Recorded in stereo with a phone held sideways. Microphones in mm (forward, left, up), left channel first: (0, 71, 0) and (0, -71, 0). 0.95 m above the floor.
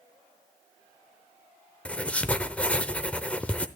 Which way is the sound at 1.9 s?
10° left (ahead or behind).